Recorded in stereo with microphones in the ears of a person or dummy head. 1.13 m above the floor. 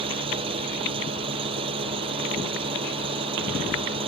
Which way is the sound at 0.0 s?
30° right (ahead or behind).